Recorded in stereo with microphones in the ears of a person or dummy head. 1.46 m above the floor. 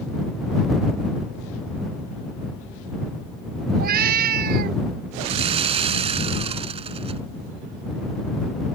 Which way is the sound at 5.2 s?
35° right (ahead or behind).